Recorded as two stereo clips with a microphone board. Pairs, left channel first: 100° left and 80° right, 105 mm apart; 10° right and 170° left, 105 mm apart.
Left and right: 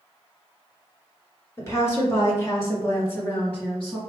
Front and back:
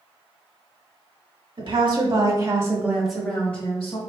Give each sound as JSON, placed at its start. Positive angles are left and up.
{"t": 1.6, "sound": "a woman speaking", "azimuth_deg": 160, "distance_m": 1.7}